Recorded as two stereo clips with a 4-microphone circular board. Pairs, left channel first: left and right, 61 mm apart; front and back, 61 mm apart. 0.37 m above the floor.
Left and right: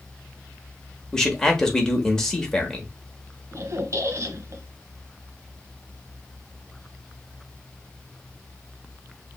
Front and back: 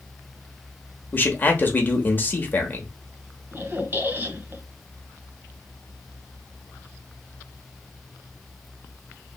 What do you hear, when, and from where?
1.1 s a man speaking: 15° left, 1.0 m
3.5 s a squeak: 125° right, 0.7 m